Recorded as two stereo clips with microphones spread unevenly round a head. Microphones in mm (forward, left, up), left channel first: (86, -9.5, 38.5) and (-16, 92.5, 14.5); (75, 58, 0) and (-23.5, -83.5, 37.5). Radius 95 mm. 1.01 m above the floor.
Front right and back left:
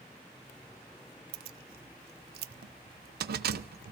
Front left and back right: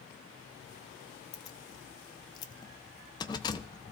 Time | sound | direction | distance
1.3 | keys jangling | 125° left | 0.6 m